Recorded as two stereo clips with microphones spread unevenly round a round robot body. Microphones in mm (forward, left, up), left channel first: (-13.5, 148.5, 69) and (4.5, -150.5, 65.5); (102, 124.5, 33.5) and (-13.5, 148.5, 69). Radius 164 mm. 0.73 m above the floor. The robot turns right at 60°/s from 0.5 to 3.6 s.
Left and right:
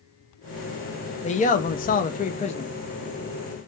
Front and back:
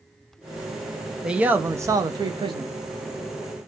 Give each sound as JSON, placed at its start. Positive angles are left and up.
{"t": 1.2, "sound": "a man speaking", "azimuth_deg": 55, "distance_m": 0.5}